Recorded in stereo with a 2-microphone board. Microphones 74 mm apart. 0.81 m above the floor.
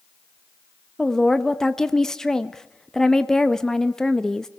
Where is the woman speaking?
10° left (ahead or behind), 0.9 m.